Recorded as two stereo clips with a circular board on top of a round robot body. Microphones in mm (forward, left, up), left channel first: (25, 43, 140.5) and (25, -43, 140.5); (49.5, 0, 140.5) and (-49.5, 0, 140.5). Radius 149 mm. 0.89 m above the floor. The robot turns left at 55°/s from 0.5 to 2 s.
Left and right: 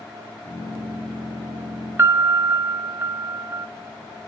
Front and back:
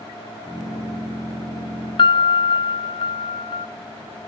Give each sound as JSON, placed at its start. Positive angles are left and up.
{"t": 2.0, "sound": "a piano", "azimuth_deg": -30, "distance_m": 0.7}